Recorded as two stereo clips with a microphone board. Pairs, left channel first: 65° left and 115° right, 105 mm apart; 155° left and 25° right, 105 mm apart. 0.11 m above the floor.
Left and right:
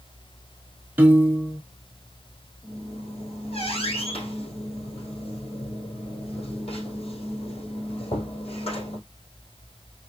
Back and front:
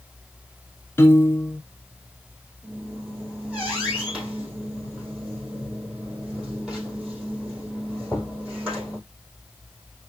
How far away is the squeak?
About 3 m.